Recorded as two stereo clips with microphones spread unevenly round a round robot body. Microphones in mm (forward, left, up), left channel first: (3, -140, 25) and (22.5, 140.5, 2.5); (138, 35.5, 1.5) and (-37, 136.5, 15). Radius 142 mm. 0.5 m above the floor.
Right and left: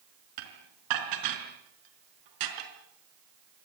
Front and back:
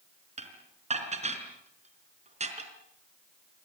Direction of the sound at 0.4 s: 95° left.